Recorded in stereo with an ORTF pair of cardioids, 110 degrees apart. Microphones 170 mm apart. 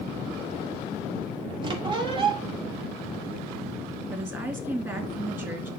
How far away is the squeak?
About 2 m.